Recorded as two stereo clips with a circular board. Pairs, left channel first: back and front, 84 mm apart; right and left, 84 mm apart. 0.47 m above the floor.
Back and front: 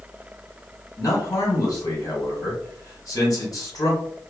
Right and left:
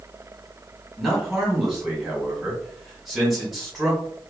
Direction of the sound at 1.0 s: Straight behind.